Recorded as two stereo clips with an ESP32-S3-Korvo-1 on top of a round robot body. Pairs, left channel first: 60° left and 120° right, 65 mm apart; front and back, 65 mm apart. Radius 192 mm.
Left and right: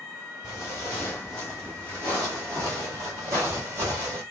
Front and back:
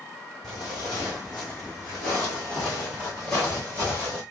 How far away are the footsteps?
About 1.3 m.